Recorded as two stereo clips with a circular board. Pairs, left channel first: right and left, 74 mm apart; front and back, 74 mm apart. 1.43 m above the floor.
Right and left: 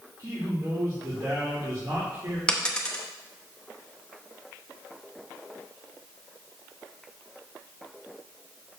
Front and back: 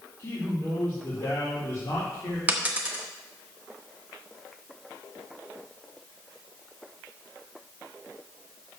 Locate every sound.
0.2 s a man speaking: 50° left, 2.5 m
2.5 s a dropped coin: 150° right, 0.9 m